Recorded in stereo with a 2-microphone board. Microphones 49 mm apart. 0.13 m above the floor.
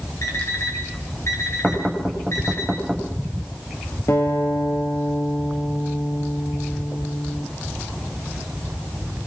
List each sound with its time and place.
0.2 s an alarm clock: 70° left (ahead or behind), 4.5 m
1.6 s knocking: centre (ahead or behind), 7 m
4.1 s a guitar: 70° left (ahead or behind), 4 m